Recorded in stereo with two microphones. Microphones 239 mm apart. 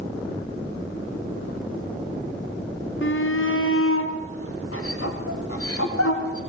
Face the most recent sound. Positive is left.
turn(degrees=80)